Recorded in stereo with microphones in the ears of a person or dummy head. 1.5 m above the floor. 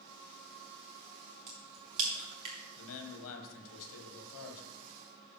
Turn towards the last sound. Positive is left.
turn(degrees=80)